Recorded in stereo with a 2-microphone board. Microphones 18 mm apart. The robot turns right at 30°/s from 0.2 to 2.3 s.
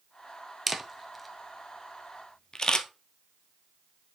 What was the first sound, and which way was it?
A camera shutter, 10° right (ahead or behind).